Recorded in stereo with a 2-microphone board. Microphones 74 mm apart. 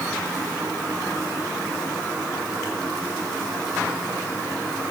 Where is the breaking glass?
I don't hear breaking glass.